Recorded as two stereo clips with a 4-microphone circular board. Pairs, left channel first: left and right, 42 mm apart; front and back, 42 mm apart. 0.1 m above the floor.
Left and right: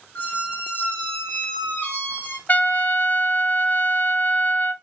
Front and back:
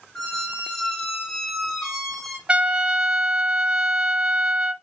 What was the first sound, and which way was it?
A squeak, 75° left.